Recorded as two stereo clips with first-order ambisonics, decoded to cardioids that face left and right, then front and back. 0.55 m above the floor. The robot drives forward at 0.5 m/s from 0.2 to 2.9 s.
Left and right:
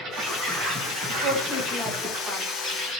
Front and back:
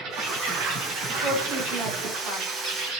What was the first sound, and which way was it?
An insect, 140° right.